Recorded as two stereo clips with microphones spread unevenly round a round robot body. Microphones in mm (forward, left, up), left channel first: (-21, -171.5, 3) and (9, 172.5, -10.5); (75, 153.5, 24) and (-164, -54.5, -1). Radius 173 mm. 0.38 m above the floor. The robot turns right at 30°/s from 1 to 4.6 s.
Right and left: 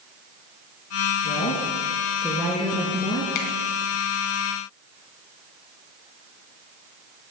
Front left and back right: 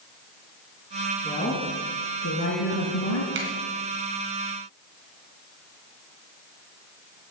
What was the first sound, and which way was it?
A woman speaking, 45° right.